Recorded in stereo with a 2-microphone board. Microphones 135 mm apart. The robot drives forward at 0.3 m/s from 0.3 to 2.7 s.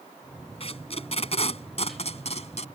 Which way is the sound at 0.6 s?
45° left (ahead or behind).